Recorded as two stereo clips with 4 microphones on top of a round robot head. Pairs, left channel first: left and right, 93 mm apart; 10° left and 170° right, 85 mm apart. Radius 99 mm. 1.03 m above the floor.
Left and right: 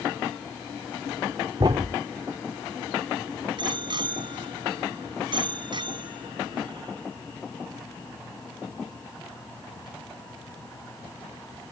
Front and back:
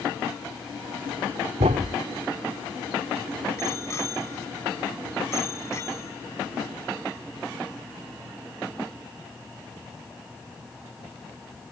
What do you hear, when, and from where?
1.6 s a thud: 145° right
3.6 s a bicycle bell: 55° right